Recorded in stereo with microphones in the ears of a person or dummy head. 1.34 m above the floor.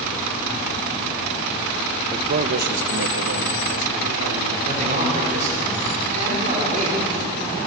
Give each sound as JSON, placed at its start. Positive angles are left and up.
{"t": 2.1, "sound": "a man speaking", "side_deg": -25, "distance_m": 0.7}
{"t": 4.7, "sound": "a man speaking", "side_deg": -40, "distance_m": 5.0}